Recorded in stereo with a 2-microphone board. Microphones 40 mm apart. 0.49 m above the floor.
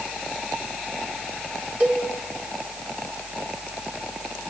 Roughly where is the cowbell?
Right.